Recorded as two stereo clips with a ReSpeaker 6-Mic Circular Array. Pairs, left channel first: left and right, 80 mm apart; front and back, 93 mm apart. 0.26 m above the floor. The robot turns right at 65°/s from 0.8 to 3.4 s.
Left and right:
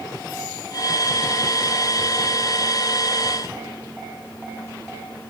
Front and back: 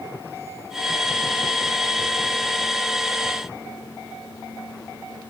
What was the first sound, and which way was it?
Only background noise.